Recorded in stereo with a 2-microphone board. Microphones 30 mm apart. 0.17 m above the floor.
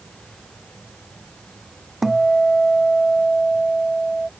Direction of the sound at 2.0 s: Centre (ahead or behind).